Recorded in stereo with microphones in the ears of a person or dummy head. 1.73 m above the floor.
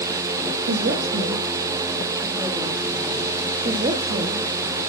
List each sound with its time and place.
0.7 s a woman speaking: 70° right (ahead or behind), 2 m; by 3.3 s 5° right (ahead or behind), 4 m
3.6 s a woman speaking: 25° right (ahead or behind), 1.6 m